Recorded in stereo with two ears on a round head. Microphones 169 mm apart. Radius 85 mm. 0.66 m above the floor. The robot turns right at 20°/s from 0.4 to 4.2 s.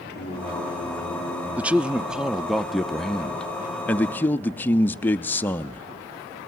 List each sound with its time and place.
0.1 s singing: 60° left (ahead or behind), 7 m; by 1.5 s 35° left (ahead or behind), 7 m
1.6 s a man speaking: 10° right (ahead or behind), 0.5 m; by 5.8 s 10° left (ahead or behind), 0.5 m